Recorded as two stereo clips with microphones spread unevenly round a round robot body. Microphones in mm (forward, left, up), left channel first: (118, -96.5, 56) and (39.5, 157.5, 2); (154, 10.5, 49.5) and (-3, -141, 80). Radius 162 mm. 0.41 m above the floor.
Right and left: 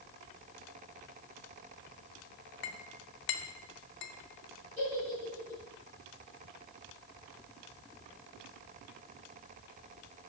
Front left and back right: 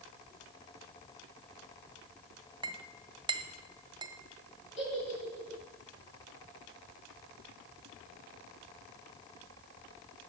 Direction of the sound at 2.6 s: 70° right.